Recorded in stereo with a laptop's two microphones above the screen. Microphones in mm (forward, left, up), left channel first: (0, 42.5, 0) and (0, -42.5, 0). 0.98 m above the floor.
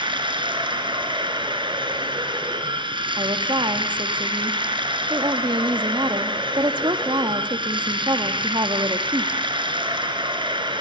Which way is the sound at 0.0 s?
75° right (ahead or behind).